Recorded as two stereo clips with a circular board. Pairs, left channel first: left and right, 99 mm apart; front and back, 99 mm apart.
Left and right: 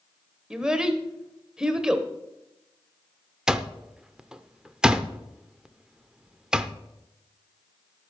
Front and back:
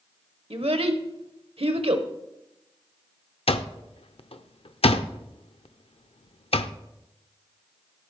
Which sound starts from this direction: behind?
A child speaking, at 0.5 s.